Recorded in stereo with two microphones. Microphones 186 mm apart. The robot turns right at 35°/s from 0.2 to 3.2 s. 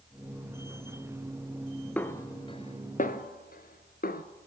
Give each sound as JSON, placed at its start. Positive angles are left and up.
{"t": 2.0, "sound": "a snare drum", "side_deg": 10, "distance_m": 0.8}